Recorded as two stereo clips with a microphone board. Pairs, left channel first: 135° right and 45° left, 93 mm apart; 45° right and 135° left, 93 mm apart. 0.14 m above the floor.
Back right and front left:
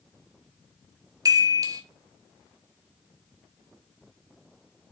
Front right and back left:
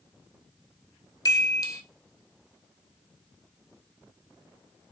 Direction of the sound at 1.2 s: Straight ahead.